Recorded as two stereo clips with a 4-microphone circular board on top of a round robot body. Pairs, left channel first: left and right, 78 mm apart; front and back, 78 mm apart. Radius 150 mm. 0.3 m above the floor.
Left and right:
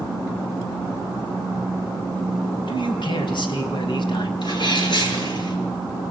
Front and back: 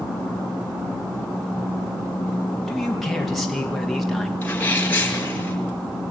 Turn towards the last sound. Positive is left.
turn(degrees=70)